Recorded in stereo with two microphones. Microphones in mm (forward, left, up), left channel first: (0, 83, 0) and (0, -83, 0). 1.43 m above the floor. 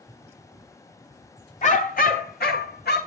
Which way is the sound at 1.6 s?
45° left (ahead or behind).